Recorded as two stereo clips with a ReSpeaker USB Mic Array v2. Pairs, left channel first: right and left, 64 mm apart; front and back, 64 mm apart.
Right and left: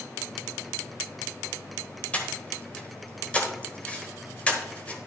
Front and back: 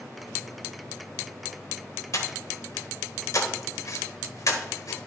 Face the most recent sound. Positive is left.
turn(degrees=-25)